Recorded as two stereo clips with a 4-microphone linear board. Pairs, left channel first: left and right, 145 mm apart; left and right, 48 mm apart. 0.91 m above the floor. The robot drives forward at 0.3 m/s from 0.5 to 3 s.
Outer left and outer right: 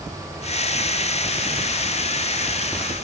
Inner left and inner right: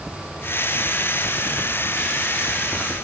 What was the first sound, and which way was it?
Only background noise.